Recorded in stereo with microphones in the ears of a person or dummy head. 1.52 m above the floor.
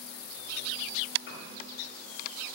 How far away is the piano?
About 3 m.